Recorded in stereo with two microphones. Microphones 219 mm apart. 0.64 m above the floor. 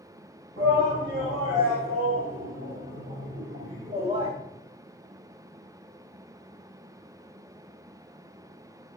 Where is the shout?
45° right (ahead or behind), 4 m; by 4.3 s 15° right (ahead or behind), 1.1 m.